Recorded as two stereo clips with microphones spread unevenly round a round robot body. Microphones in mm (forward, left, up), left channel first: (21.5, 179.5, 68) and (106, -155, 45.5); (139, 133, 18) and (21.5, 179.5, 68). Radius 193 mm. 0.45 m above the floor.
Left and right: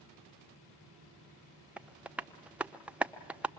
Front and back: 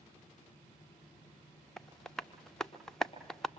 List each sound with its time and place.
1.8 s tapping: straight ahead, 0.9 m